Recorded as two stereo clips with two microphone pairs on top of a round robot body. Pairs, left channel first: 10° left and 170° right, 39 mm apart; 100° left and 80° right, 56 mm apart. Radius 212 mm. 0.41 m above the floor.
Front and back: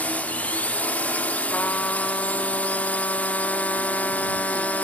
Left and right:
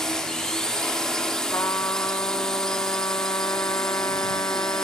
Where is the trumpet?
60° left.